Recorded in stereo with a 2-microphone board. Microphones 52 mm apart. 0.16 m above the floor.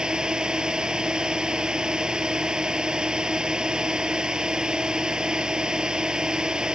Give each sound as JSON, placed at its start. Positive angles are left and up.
{"t": 0.0, "sound": "a drone", "side_deg": -15}